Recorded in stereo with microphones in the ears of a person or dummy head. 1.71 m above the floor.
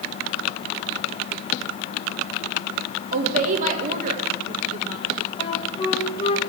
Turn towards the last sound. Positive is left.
turn(degrees=25)  # may be behind; listen again after turning